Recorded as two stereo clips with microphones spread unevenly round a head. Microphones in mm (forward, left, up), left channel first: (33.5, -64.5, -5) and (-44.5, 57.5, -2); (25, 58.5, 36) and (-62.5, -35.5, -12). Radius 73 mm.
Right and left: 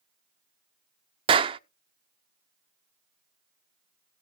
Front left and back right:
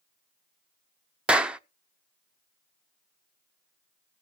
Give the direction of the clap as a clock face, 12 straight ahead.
8 o'clock.